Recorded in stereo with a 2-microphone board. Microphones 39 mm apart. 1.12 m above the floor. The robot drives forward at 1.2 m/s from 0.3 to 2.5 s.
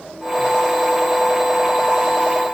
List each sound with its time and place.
Only background noise.